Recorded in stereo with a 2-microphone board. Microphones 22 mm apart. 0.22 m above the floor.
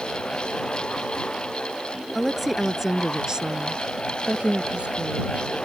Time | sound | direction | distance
2.1 | a woman speaking | 5° left (ahead or behind) | ?